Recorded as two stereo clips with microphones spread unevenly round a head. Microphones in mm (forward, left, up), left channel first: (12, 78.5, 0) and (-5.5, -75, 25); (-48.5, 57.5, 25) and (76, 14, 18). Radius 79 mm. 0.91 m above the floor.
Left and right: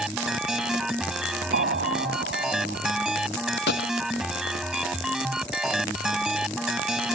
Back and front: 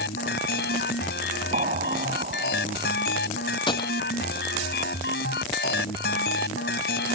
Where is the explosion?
70° right.